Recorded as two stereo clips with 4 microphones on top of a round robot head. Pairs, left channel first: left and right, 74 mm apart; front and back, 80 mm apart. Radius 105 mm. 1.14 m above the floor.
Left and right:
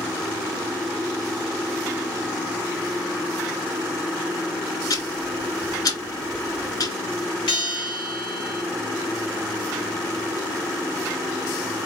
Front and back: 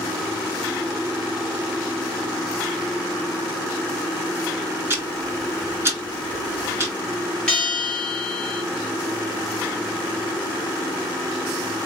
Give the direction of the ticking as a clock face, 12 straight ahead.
8 o'clock.